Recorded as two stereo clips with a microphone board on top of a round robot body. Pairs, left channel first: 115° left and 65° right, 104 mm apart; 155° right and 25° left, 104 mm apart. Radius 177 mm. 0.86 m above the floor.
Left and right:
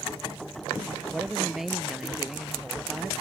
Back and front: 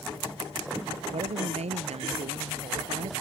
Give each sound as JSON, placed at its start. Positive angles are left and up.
{"t": 1.1, "sound": "a woman speaking", "azimuth_deg": 20}